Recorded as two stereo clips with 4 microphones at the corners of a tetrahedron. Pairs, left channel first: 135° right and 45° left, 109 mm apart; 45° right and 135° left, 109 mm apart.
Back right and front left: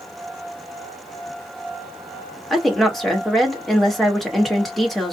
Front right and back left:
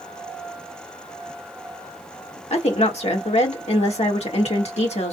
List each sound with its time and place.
2.5 s a woman speaking: 45° right, 1.7 m